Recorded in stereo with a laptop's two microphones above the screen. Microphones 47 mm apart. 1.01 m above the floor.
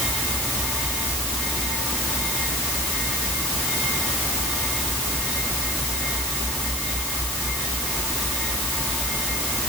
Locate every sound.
Only background noise.